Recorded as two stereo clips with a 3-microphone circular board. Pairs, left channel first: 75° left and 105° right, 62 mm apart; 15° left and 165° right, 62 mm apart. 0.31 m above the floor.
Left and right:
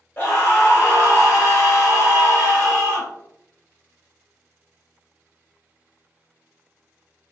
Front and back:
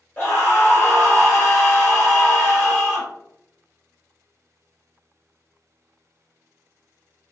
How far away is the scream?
About 1.4 m.